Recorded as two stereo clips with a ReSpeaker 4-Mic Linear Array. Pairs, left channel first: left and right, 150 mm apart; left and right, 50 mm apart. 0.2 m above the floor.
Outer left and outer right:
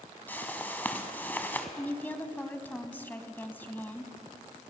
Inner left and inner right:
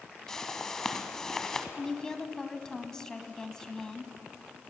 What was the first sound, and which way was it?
A whoosh, 10° left (ahead or behind).